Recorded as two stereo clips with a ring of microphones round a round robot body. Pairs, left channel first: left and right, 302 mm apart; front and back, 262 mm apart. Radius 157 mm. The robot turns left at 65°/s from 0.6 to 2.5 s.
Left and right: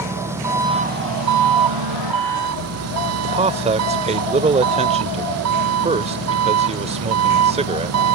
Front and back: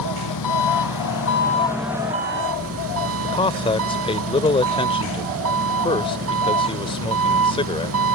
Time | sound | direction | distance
0.0 | an engine running | 10° right | ?
3.2 | a man speaking | 45° right | ?